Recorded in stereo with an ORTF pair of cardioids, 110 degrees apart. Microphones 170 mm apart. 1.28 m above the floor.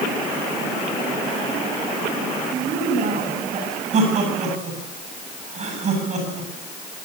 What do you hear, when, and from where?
2.5 s a woman speaking: 55° right, 9.5 m
3.9 s laughter: 45° right, 8 m